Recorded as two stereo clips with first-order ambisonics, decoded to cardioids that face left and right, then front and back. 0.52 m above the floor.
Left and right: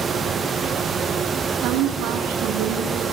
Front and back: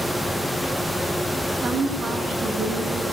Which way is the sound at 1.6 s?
115° right.